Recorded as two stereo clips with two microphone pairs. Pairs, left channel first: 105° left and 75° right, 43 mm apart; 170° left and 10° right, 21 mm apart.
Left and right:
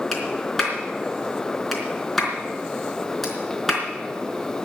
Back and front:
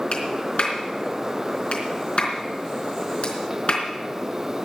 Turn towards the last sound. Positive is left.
turn(degrees=-170)